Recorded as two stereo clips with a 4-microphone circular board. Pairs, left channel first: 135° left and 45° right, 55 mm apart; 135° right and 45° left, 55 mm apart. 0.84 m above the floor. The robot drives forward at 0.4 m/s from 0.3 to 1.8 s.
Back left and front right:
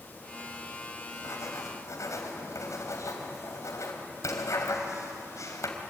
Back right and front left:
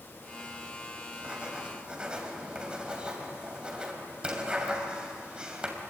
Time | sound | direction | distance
1.1 | writing | 115° left | 3 m